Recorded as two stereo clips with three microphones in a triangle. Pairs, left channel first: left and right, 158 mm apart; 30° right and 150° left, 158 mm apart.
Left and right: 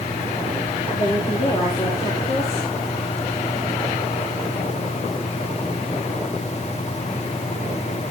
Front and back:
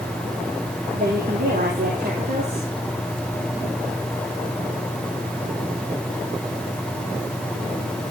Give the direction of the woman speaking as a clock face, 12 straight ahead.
7 o'clock.